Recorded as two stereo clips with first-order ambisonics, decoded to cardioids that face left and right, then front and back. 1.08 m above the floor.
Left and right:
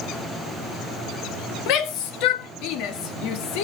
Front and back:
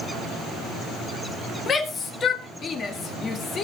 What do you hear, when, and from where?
1.7 s a shout: 65° left, 1.6 m